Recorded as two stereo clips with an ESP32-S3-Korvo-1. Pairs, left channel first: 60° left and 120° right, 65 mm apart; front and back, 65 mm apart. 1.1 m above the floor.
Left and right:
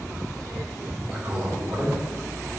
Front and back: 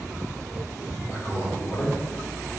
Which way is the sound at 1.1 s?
45° right.